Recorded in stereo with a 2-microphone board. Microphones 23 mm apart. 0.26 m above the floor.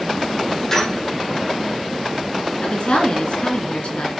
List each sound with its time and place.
0.7 s a squeak: 20° left (ahead or behind), 4.5 m
2.6 s a woman speaking: 55° left (ahead or behind), 3 m